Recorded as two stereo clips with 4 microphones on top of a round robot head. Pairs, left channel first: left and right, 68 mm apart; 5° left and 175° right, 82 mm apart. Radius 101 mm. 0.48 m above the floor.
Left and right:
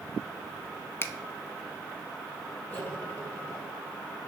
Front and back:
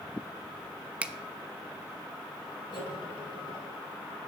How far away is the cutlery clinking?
About 2 m.